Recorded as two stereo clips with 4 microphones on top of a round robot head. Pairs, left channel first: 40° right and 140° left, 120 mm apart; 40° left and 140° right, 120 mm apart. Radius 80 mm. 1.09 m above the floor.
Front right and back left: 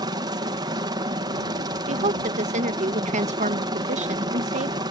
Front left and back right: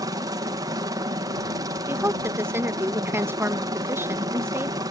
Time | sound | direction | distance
0.0 | a helicopter | 175° left | ?
1.9 | a woman speaking | 150° left | ?